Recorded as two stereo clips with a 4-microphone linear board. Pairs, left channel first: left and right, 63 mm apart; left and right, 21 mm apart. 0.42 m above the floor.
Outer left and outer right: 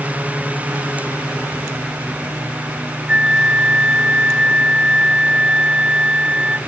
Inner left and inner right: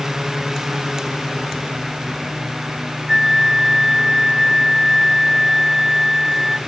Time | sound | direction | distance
3.1 | a flute | 20° right (ahead or behind) | 0.8 m